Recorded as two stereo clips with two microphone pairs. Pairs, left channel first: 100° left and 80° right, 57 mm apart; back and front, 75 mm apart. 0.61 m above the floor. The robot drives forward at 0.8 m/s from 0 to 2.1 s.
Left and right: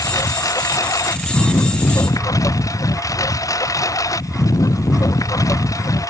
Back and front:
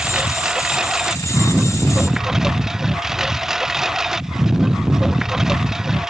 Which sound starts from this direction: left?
A lawn mower, at 0.0 s.